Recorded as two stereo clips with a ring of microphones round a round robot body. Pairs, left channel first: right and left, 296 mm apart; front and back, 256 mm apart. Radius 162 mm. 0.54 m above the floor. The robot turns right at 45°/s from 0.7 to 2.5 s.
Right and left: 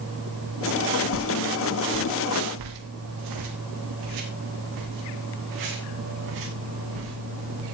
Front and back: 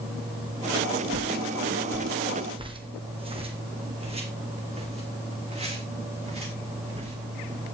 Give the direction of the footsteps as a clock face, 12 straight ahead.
11 o'clock.